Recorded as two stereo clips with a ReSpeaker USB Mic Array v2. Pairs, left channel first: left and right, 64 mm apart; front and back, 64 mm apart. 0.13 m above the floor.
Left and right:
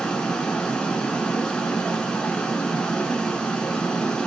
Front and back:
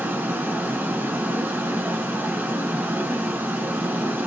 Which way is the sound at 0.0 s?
160° left.